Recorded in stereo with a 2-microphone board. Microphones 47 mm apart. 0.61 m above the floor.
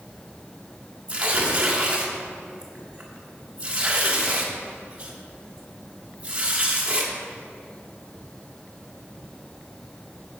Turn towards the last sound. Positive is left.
turn(degrees=-25)  # may be behind; listen again after turning